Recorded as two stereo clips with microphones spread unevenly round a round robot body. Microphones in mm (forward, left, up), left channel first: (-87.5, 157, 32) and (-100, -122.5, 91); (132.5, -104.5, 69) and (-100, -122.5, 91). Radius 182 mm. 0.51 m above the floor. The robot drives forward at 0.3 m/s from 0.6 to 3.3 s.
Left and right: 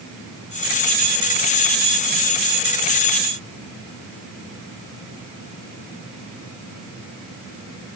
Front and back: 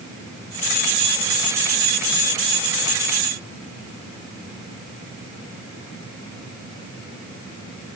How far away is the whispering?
No whispering in this recording.